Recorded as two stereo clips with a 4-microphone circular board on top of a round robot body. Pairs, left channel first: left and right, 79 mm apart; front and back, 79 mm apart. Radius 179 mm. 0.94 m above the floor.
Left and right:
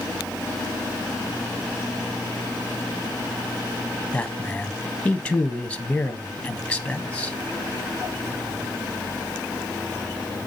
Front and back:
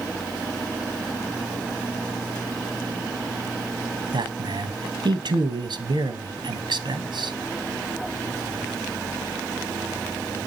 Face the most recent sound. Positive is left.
turn(degrees=165)